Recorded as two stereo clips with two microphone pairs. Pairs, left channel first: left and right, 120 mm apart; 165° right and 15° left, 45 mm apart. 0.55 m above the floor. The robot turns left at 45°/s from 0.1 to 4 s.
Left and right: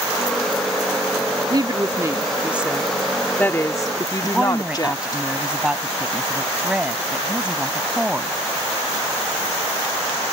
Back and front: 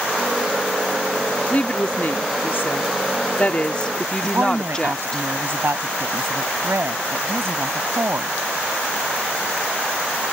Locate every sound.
1.5 s a woman speaking: 120° right; by 5.2 s 125° left
4.2 s a woman speaking: 10° right